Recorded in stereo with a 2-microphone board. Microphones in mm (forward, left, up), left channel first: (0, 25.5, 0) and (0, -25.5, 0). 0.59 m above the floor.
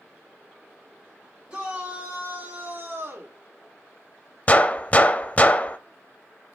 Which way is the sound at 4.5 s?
30° left (ahead or behind).